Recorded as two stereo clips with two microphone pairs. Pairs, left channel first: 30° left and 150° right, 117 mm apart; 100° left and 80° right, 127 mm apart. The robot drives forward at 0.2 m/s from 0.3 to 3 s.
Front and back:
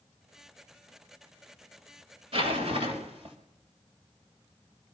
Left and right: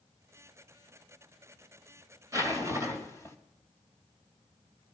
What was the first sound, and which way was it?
A zipper, 145° right.